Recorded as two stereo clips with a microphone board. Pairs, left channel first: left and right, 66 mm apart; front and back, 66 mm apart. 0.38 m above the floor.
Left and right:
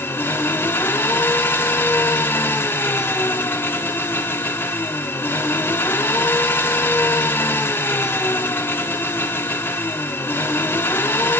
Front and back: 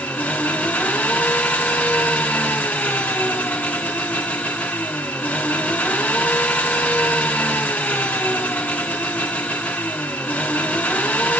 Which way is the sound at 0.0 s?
55° left.